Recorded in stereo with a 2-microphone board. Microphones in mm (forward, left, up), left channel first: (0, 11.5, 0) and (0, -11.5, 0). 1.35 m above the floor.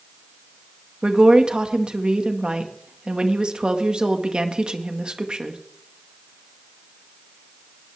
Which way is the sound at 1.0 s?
45° right (ahead or behind).